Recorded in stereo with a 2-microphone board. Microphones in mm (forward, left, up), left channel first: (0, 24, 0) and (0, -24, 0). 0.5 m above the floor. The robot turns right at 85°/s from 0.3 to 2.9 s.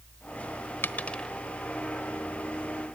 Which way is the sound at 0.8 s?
50° left (ahead or behind).